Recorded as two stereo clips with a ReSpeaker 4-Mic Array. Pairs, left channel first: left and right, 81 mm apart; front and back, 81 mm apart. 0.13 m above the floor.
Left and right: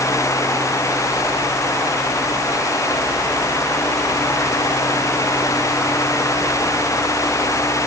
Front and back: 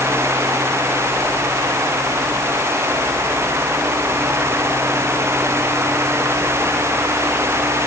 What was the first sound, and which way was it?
Only background noise.